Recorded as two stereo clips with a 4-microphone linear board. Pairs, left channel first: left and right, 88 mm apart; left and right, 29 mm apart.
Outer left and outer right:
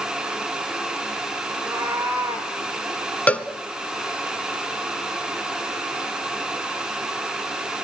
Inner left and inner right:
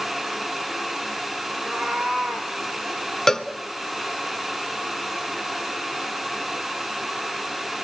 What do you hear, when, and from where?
1.5 s a cat meowing: 30° right (ahead or behind), 6.5 m; by 2.5 s 25° right (ahead or behind), 6 m
3.3 s a cowbell: 15° left (ahead or behind), 1.1 m